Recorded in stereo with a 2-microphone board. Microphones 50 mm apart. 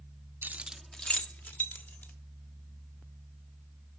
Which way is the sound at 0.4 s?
45° right (ahead or behind).